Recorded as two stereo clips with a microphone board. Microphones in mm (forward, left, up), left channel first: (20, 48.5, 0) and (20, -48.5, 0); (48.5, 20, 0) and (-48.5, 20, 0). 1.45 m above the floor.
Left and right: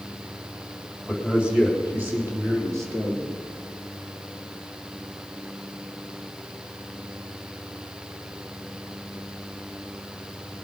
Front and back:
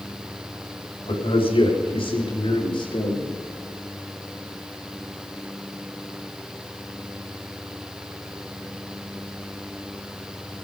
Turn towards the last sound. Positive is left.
turn(degrees=-35)